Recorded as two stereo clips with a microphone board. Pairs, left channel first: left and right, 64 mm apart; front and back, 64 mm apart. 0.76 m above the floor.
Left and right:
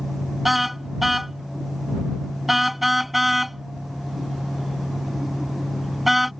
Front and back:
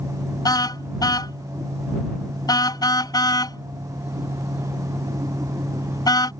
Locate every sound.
0.5 s a car horn: straight ahead